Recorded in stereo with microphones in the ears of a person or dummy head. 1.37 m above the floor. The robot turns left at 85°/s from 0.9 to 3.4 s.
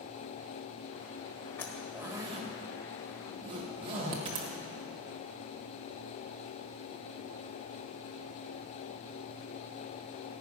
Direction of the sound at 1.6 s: 10° left (ahead or behind).